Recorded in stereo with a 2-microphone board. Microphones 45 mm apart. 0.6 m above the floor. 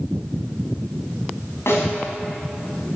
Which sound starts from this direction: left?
A snare drum, at 1.7 s.